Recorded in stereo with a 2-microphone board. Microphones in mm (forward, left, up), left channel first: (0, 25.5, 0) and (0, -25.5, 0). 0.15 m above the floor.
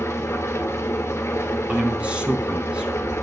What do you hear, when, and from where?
0.0 s an engine running: 65° left (ahead or behind), 1.4 m
1.7 s a man speaking: 25° right (ahead or behind), 1.9 m